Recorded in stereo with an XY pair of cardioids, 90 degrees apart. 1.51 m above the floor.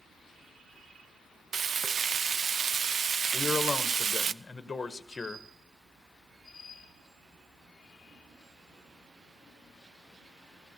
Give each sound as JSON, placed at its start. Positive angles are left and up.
{"t": 1.5, "sound": "frying", "azimuth_deg": -50, "distance_m": 0.6}
{"t": 3.3, "sound": "a man speaking", "azimuth_deg": 30, "distance_m": 1.4}